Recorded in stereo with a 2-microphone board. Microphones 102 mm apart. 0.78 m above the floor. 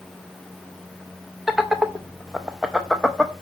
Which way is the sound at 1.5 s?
5° right (ahead or behind).